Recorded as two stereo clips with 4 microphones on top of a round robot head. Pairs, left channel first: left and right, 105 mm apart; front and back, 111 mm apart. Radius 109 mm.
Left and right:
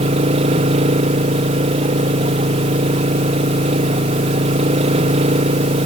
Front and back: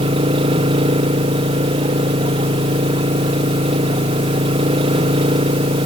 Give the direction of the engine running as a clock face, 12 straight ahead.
4 o'clock.